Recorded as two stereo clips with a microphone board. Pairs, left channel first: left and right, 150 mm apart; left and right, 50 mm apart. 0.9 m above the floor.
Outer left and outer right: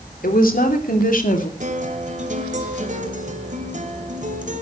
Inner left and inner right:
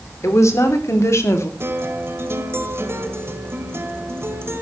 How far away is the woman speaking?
About 3.5 m.